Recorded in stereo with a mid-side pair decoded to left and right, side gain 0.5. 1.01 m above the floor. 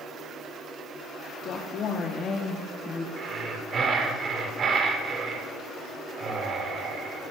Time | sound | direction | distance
1.4 | a woman speaking | 65° left | 2 m
3.2 | breathing | 50° right | 4 m